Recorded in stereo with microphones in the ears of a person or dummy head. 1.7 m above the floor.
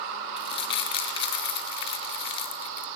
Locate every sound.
0.4 s crumpling: 35° left (ahead or behind), 0.8 m